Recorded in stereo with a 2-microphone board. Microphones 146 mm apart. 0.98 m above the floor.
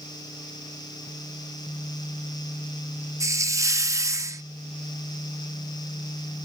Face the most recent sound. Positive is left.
turn(degrees=-20)  # may be behind; listen again after turning